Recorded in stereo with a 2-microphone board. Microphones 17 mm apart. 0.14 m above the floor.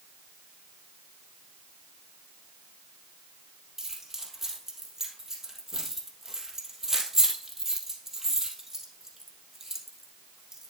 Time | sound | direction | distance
3.8 | keys jangling | 20° right (ahead or behind) | 2.5 m